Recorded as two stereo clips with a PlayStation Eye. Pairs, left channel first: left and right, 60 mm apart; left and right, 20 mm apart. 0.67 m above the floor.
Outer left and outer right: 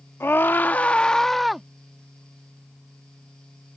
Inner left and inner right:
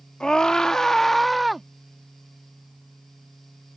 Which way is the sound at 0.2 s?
45° left (ahead or behind).